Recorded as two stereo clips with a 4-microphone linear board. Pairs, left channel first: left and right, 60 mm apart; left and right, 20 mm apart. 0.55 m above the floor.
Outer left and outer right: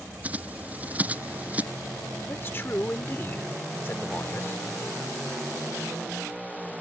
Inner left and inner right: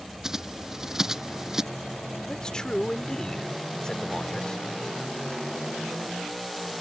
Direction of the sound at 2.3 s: 40° left (ahead or behind).